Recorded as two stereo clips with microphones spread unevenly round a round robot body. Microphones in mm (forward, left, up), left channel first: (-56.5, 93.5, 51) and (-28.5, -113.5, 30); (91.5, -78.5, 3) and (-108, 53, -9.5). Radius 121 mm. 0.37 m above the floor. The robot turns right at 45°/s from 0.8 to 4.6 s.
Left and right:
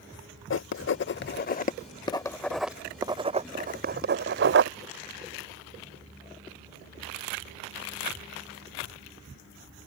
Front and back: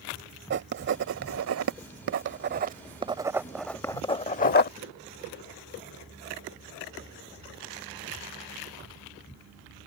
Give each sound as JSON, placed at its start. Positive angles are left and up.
{"t": 0.5, "sound": "writing", "azimuth_deg": 110}